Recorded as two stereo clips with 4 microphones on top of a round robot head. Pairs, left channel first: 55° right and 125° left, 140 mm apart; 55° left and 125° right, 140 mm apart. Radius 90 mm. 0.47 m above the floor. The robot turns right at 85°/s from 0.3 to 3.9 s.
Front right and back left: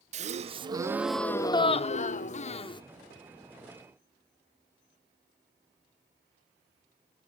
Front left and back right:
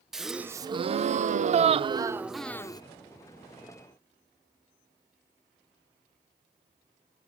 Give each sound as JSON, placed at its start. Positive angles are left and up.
{"t": 0.1, "sound": "a gasp", "azimuth_deg": 145, "distance_m": 0.6}